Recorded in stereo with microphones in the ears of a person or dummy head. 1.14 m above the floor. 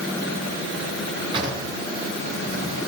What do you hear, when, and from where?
1.3 s a drawer: 30° right (ahead or behind), 5.5 m